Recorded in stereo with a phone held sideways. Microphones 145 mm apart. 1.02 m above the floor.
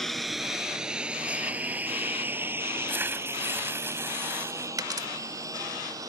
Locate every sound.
0.0 s a lawn mower: centre (ahead or behind); by 6.1 s 25° right (ahead or behind)
2.9 s tearing paper: 15° right (ahead or behind)
4.8 s a dropped coin: 25° right (ahead or behind)